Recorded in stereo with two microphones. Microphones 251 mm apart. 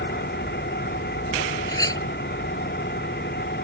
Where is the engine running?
40° left (ahead or behind).